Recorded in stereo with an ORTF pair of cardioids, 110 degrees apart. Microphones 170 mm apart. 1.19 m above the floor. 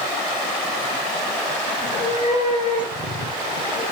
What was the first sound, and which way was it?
A cat meowing, 55° left.